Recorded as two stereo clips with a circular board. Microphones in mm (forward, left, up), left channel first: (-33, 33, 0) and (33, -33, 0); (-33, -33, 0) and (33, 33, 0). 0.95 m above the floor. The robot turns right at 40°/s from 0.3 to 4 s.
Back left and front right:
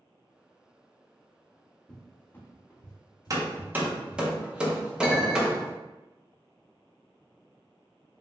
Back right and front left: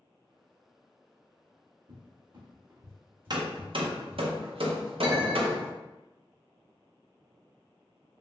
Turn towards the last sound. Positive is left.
turn(degrees=45)